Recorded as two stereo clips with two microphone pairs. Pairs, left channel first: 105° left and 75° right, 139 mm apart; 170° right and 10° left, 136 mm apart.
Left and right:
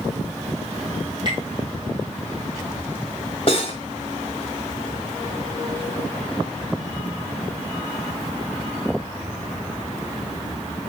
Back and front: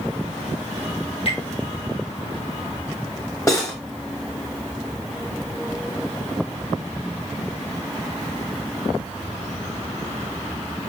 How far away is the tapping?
About 2 m.